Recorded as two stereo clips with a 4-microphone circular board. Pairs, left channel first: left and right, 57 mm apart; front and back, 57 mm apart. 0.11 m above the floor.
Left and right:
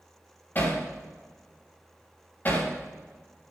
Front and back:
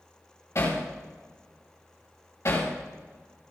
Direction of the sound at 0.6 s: 35° left.